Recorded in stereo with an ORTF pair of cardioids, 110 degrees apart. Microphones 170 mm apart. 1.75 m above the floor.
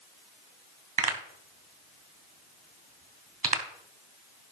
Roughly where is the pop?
Ahead right.